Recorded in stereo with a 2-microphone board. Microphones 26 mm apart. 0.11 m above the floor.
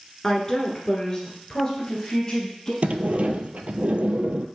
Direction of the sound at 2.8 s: 60° right (ahead or behind).